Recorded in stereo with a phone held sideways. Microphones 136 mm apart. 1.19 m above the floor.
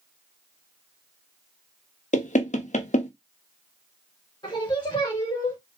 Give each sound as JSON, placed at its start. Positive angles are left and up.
{"t": 2.1, "sound": "knocking", "side_deg": 60, "distance_m": 0.8}
{"t": 4.4, "sound": "singing", "side_deg": 35, "distance_m": 2.5}